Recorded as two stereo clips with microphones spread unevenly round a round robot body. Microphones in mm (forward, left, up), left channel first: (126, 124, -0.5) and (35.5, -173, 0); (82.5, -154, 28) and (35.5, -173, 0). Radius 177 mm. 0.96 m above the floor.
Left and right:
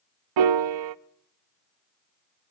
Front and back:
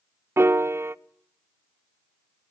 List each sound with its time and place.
0.4 s a piano: 105° right, 0.6 m